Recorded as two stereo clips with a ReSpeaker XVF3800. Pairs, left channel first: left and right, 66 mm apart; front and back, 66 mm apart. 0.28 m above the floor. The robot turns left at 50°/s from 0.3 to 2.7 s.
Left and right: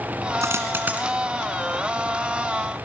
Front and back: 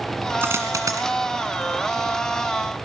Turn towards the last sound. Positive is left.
turn(degrees=120)